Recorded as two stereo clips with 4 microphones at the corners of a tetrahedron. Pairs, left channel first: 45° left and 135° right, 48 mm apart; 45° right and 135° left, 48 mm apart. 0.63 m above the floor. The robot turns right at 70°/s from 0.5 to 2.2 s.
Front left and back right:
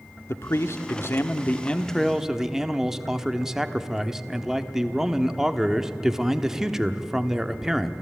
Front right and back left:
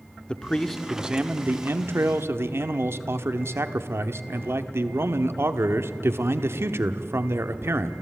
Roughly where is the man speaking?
Ahead left.